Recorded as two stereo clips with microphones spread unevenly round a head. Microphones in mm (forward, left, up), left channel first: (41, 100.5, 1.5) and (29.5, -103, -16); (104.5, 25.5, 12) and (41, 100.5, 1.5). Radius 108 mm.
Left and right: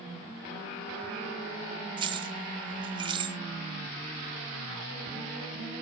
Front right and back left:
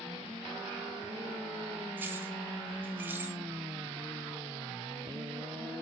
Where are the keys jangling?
155° right, 0.5 m.